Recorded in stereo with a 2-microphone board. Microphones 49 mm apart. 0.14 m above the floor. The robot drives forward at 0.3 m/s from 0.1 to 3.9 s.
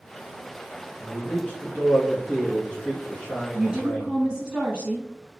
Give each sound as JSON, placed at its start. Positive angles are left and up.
{"t": 1.0, "sound": "a man speaking", "side_deg": 25, "distance_m": 1.6}
{"t": 3.5, "sound": "a woman speaking", "side_deg": -15, "distance_m": 1.1}